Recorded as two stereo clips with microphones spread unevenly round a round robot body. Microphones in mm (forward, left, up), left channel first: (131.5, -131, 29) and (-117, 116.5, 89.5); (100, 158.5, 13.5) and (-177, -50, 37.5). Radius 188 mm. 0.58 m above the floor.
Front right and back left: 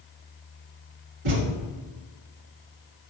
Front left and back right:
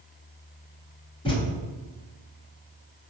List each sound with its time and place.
1.2 s a thud: 115° left, 0.9 m